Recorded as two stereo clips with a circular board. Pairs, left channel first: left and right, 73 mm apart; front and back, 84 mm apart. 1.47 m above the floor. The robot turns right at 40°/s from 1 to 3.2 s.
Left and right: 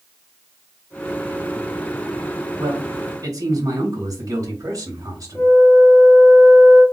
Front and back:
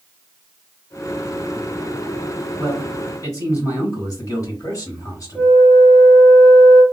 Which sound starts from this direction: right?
A man speaking, at 2.6 s.